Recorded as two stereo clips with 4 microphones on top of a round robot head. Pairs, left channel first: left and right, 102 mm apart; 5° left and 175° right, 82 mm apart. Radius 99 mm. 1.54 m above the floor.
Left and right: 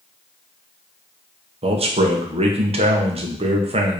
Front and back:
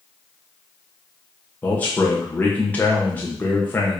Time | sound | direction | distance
1.6 | a man speaking | 70° right | 1.4 m